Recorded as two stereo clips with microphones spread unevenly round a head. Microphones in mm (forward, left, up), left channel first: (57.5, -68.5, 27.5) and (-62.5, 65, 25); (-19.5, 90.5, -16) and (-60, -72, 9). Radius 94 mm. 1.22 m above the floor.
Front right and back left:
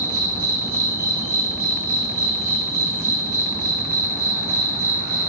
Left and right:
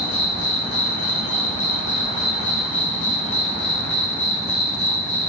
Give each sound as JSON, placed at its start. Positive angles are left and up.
{"t": 0.0, "sound": "an insect", "azimuth_deg": 55, "distance_m": 0.7}